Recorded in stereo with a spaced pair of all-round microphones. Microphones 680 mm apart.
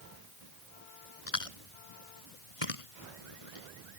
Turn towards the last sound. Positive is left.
turn(degrees=50)  # may be behind; listen again after turning